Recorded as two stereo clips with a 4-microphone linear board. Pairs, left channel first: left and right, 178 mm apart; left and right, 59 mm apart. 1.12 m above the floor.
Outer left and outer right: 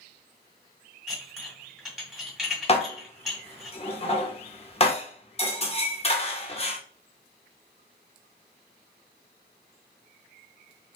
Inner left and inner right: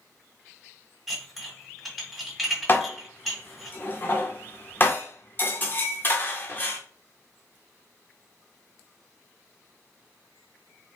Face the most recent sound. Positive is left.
turn(degrees=35)  # may be behind; listen again after turning